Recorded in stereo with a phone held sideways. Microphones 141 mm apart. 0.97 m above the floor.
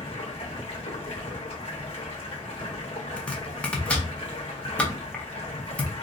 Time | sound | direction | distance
0.0 | running water | 40° left (ahead or behind) | 1.1 m
3.2 | chopping | 10° left (ahead or behind) | 0.6 m